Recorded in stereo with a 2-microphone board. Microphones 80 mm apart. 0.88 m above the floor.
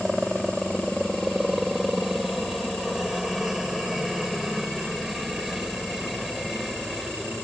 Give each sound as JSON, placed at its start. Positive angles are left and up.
{"t": 0.0, "sound": "a helicopter", "side_deg": 0}